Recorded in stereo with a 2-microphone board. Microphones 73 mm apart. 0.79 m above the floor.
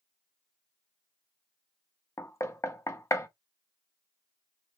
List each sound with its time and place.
2.2 s knocking: 40° left (ahead or behind), 0.6 m